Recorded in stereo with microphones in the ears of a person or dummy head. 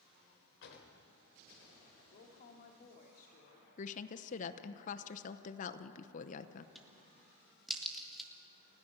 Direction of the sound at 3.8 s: 40° left (ahead or behind).